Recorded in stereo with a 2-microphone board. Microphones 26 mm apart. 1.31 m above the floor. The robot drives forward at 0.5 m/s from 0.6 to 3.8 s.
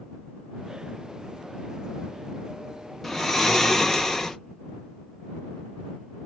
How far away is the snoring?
About 0.7 m.